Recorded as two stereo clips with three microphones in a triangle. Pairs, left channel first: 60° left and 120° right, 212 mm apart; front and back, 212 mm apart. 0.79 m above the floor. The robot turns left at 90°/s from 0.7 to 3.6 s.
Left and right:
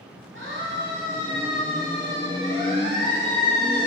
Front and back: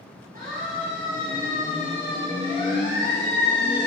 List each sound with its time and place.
0.3 s a siren: 135° right, 7.5 m; by 3.9 s 25° right, 11.5 m